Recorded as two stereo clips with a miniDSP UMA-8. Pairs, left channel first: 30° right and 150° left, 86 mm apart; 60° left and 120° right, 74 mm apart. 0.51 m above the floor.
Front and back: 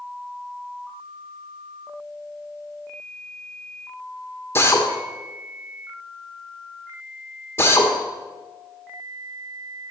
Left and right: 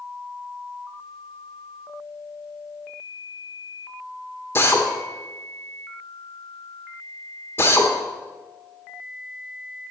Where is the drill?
20° left, 1.4 m.